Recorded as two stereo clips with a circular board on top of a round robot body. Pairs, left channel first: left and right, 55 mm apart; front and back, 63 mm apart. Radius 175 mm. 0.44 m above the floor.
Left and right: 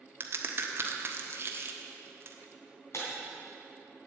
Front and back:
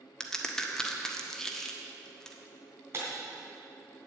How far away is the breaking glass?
About 3 m.